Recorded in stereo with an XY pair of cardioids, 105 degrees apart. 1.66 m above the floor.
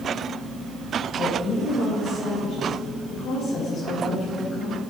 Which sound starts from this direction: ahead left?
A woman speaking, at 1.1 s.